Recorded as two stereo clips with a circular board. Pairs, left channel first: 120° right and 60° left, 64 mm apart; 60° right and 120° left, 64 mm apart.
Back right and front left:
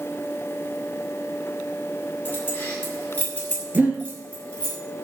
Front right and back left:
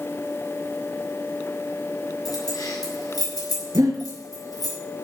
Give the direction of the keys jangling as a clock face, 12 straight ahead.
2 o'clock.